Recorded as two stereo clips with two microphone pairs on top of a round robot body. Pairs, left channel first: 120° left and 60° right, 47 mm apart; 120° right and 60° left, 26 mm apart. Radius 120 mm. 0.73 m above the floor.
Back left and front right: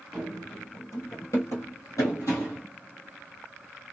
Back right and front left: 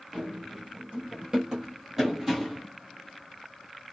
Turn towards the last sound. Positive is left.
turn(degrees=145)